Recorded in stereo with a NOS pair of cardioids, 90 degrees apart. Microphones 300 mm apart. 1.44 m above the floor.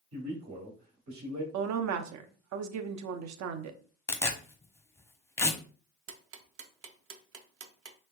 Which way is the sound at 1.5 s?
65° right.